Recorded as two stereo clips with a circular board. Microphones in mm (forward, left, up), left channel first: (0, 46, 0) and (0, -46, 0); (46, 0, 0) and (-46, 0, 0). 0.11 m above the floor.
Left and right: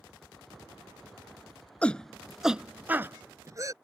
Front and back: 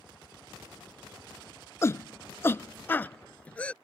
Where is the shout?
25° left; by 3.7 s 70° right.